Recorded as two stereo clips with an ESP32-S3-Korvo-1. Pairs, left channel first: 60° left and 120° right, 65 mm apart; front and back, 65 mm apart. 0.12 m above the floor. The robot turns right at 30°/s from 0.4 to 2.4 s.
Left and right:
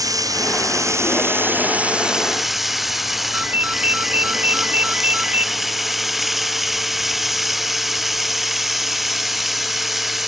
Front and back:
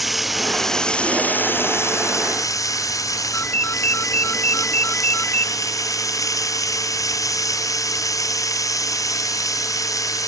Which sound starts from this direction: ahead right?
A ringtone, at 3.3 s.